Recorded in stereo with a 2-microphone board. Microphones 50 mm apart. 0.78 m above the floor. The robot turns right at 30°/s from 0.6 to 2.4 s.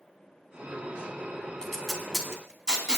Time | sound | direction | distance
1.6 | tape being pulled | 10° left (ahead or behind) | 2.5 m